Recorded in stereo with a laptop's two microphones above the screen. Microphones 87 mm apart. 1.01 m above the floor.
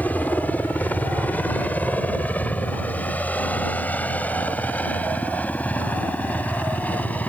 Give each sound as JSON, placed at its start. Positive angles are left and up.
{"t": 0.0, "sound": "a helicopter", "side_deg": 20}